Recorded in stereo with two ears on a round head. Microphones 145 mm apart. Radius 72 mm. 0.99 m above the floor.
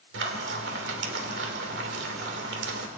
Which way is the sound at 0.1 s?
80° right.